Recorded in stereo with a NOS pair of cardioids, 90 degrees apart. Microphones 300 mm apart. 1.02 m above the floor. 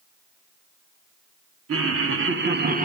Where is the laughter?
50° right, 3 m; by 2.9 s 30° right, 1.6 m.